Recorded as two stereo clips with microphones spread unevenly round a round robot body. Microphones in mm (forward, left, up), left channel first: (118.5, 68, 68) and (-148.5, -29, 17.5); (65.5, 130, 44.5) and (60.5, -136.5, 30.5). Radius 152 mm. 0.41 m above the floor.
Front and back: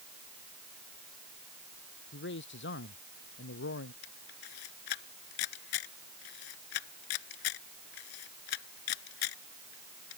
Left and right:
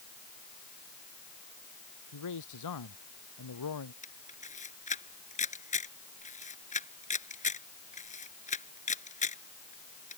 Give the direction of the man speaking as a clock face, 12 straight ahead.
10 o'clock.